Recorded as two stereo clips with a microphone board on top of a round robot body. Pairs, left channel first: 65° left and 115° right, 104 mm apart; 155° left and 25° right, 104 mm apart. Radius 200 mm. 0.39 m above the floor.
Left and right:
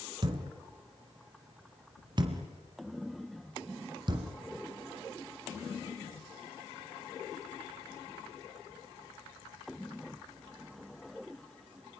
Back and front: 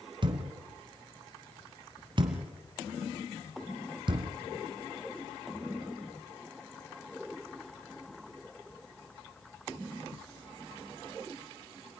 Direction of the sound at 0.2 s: 65° right.